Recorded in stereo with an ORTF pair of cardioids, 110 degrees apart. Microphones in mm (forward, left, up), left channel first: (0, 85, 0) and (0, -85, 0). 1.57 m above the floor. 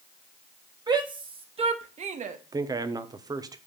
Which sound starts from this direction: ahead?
A man speaking, at 2.5 s.